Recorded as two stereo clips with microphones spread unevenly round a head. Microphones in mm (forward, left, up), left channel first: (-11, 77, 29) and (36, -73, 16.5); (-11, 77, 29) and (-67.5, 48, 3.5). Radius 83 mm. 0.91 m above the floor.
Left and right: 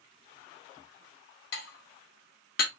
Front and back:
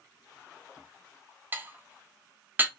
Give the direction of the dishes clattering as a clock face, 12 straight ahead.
7 o'clock.